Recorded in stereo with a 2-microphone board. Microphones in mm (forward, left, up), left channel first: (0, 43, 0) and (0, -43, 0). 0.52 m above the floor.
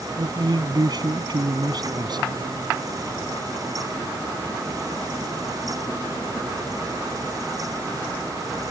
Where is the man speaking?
55° right (ahead or behind).